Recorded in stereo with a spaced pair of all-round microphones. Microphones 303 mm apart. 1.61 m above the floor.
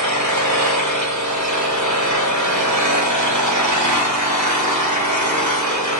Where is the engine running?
65° right (ahead or behind), 1.3 m.